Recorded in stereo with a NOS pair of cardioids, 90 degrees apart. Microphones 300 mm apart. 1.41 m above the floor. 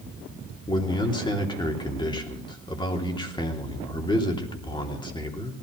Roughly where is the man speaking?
Ahead.